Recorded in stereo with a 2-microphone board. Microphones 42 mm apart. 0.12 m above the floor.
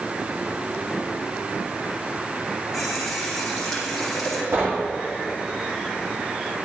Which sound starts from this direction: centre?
A running tap, at 2.7 s.